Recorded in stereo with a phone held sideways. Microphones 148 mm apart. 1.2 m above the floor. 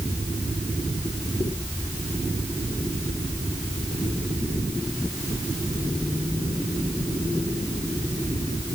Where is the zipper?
I don't hear a zipper.